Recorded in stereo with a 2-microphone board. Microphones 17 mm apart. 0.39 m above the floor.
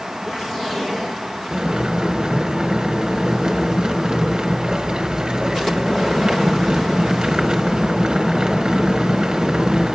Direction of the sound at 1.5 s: 55° right (ahead or behind).